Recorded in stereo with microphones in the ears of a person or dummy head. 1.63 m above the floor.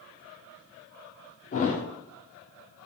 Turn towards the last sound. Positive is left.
turn(degrees=40)  # may be behind; listen again after turning